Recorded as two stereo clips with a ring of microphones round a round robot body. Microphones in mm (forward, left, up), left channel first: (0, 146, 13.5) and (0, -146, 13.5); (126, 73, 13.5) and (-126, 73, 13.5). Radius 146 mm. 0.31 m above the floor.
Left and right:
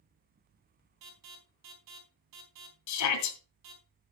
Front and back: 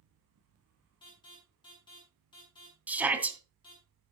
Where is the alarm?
75° right, 4.5 m.